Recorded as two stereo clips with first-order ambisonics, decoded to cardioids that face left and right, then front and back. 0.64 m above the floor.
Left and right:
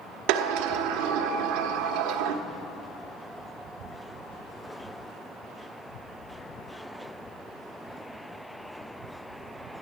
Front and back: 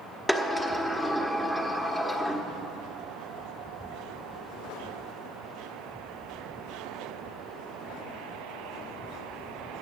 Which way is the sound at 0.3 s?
85° right.